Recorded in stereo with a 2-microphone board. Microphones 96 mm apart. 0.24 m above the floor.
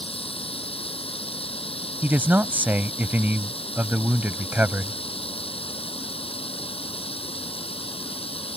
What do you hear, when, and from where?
0.0 s running water: 75° left (ahead or behind)
2.0 s a man speaking: 20° right (ahead or behind)